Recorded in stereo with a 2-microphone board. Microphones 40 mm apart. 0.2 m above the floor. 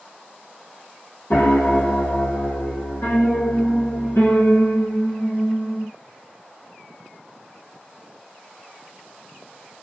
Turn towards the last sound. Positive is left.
turn(degrees=85)